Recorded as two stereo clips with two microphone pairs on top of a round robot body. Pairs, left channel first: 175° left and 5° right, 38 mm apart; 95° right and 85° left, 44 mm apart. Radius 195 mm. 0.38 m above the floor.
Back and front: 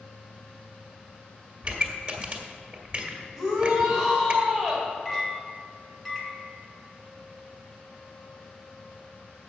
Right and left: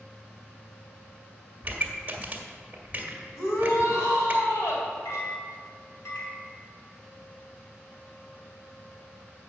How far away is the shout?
About 3 m.